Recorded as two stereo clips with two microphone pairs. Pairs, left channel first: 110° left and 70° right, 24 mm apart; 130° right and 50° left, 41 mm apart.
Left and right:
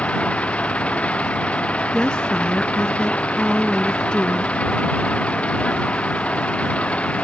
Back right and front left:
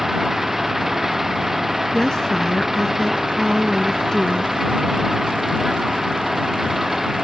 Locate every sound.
0.0 s an engine running: 135° left
1.9 s a woman speaking: 160° left